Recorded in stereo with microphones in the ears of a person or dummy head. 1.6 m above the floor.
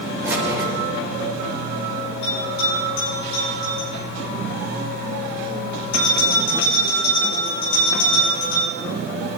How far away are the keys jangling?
About 5 m.